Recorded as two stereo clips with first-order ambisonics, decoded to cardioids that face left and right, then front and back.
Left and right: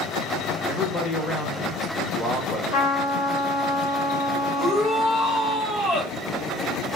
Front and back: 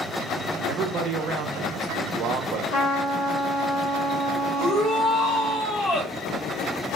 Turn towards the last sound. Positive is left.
turn(degrees=35)